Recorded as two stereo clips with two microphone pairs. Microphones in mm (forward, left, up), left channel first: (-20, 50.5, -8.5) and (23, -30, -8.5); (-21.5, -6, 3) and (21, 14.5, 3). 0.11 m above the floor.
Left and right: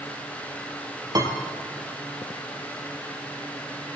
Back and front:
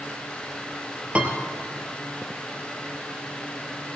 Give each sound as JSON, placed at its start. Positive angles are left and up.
{"t": 1.1, "sound": "a piano", "azimuth_deg": -30, "distance_m": 1.6}